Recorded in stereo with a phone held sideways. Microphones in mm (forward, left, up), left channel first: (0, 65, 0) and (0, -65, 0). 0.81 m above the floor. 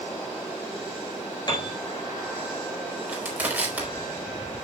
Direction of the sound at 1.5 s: 35° left (ahead or behind).